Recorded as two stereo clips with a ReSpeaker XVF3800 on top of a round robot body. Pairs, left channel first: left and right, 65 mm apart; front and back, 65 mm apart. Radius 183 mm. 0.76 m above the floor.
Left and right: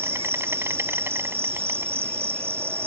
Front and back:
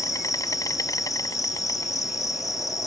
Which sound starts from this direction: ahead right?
An insect, at 0.0 s.